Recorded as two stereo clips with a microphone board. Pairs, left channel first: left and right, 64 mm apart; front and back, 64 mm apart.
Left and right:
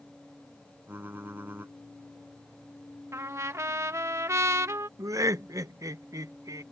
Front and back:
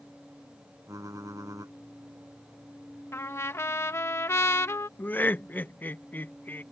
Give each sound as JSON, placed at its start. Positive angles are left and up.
{"t": 0.9, "sound": "typing on a keyboard", "azimuth_deg": -150}
{"t": 3.1, "sound": "a trumpet", "azimuth_deg": -50}
{"t": 5.0, "sound": "laughter", "azimuth_deg": -60}